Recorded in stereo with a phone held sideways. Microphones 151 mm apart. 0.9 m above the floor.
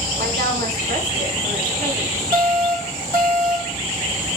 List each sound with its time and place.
0.2 s a woman speaking: 75° right (ahead or behind), 4 m; by 2.2 s 80° right, 5 m
2.3 s an alarm: 70° right (ahead or behind), 6 m